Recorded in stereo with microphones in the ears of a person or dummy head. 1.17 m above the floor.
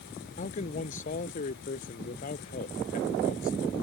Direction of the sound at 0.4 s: 50° left (ahead or behind).